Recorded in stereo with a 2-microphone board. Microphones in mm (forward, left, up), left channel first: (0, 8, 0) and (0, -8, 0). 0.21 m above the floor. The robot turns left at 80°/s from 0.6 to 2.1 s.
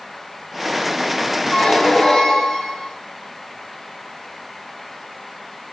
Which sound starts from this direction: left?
A squeak, at 1.5 s.